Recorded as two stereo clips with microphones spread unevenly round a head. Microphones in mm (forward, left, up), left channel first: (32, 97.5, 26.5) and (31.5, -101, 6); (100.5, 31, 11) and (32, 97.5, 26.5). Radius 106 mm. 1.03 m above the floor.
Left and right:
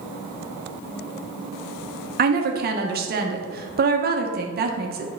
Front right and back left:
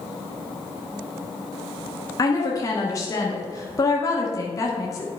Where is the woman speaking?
85° right, 1.0 m.